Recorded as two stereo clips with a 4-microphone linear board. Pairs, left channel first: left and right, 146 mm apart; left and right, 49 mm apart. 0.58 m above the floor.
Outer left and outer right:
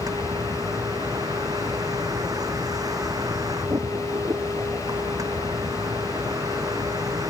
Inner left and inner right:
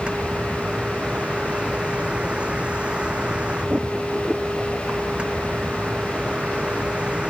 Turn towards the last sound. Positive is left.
turn(degrees=-25)  # may be behind; listen again after turning